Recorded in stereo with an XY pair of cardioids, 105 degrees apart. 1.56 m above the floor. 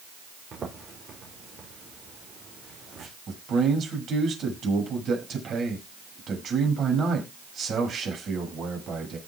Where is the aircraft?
No aircraft in this recording.